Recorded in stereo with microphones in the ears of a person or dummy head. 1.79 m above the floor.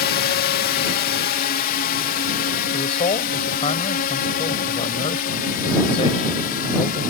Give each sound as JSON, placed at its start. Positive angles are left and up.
{"t": 0.0, "sound": "a drone", "side_deg": 50}
{"t": 2.7, "sound": "a man speaking", "side_deg": 30}